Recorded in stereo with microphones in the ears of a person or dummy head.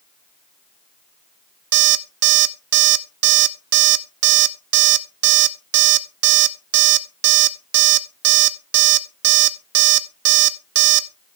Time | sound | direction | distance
1.7 | an alarm clock | 70° right (ahead or behind) | 1.0 m